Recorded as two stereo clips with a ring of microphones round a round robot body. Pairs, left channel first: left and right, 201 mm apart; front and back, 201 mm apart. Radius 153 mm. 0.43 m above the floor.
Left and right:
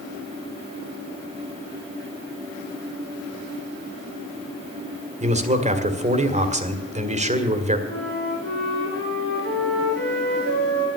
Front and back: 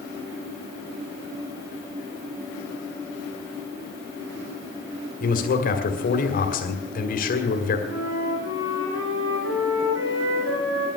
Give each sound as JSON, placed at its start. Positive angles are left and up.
{"t": 5.2, "sound": "a man speaking", "azimuth_deg": -40, "distance_m": 2.0}
{"t": 7.9, "sound": "a flute", "azimuth_deg": -150, "distance_m": 3.0}